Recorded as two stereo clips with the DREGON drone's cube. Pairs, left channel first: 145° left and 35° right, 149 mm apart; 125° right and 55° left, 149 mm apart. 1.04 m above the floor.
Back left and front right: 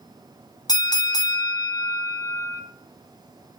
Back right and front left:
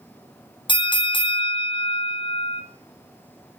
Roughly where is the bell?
Behind.